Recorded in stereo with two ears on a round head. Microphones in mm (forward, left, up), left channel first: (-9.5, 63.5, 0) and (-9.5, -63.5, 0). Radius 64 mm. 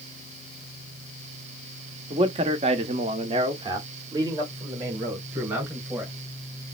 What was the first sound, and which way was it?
A man speaking, 40° right (ahead or behind).